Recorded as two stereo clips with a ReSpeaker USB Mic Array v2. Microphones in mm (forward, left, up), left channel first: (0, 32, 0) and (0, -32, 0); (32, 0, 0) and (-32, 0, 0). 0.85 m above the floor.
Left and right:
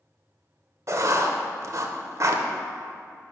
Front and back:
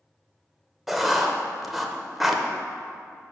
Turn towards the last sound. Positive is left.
turn(degrees=-95)